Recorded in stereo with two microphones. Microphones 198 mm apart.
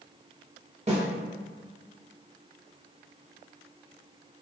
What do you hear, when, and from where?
0.9 s a snare drum: 35° right (ahead or behind), 1.0 m